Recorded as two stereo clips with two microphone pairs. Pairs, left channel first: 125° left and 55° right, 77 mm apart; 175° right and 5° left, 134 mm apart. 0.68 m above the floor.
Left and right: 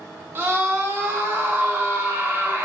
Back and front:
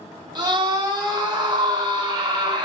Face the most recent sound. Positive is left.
turn(degrees=-30)